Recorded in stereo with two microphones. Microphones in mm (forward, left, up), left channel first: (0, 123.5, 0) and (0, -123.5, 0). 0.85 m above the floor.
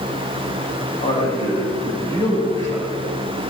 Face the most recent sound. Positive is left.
turn(degrees=10)  # may be behind; listen again after turning